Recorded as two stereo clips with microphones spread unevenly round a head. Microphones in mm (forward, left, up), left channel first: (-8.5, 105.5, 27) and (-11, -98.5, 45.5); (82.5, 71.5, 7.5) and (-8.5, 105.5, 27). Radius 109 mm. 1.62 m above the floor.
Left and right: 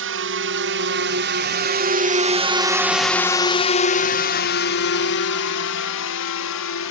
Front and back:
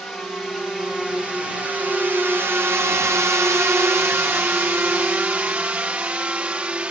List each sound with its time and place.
0.0 s a drone: 110° right; by 6.9 s 80° left